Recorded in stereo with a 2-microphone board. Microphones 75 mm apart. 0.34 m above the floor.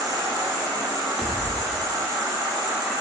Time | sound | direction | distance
0.0 | an insect | 60° right (ahead or behind) | 1.1 m
1.2 | a pop | 20° right (ahead or behind) | 0.6 m